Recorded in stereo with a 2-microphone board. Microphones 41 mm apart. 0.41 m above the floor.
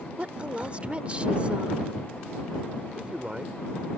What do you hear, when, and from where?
0.2 s a woman speaking: 30° right (ahead or behind)
3.0 s a man speaking: 30° right (ahead or behind)